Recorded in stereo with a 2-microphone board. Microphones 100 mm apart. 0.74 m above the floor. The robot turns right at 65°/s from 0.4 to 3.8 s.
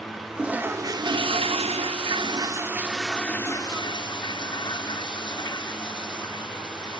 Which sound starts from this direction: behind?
A toilet flushing, at 0.4 s.